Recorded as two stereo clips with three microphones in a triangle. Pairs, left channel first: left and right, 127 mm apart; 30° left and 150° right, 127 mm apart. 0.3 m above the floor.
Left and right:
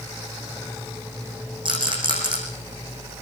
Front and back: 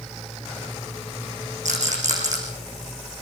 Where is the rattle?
140° right, 8 m.